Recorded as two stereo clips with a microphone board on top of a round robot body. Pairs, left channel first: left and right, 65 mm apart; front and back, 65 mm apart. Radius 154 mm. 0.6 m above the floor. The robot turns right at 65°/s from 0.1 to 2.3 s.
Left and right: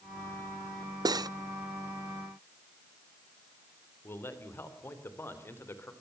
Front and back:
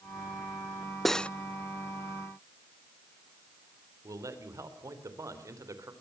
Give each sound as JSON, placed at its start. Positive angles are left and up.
{"t": 1.1, "sound": "cutlery clinking", "azimuth_deg": -90, "distance_m": 0.5}
{"t": 4.0, "sound": "a man speaking", "azimuth_deg": 145, "distance_m": 3.0}